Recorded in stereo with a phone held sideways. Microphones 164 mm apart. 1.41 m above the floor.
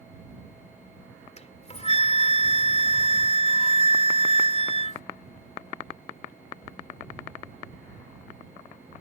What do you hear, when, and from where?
1.4 s a flute: 40° left (ahead or behind)